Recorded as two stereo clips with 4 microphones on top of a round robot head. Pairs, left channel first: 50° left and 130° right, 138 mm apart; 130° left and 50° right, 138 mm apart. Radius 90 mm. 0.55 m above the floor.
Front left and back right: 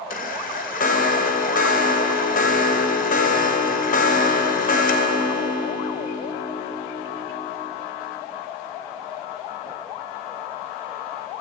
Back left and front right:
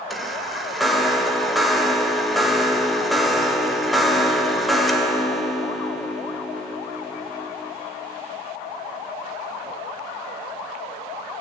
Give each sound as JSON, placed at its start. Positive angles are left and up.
{"t": 0.1, "sound": "a chime", "azimuth_deg": 45, "distance_m": 3.0}